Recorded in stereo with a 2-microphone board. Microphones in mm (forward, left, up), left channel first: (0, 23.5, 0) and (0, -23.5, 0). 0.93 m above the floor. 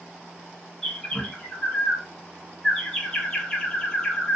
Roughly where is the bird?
Centre.